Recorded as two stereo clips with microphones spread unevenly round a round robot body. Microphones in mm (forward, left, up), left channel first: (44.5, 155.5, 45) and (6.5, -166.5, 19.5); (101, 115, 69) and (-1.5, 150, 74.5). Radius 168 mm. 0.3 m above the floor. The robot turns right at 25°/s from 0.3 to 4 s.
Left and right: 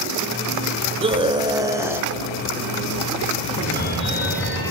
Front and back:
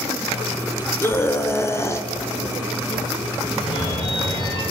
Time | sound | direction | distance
1.0 | a scream | 55° right | 1.5 m
3.5 | a phone ringing | 15° left | 9 m